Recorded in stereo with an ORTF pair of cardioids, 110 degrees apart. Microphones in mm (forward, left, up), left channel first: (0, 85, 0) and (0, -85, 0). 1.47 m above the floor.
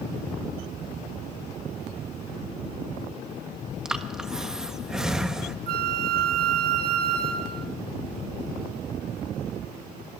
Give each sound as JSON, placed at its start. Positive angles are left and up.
{"t": 3.9, "sound": "breathing", "azimuth_deg": -5, "distance_m": 1.3}
{"t": 5.7, "sound": "a flute", "azimuth_deg": -60, "distance_m": 1.7}